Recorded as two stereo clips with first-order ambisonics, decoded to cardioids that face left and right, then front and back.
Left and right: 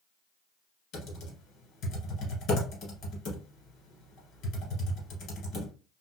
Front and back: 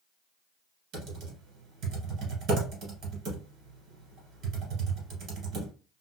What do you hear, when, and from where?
0.9 s typing on a keyboard: 135° left, 1.6 m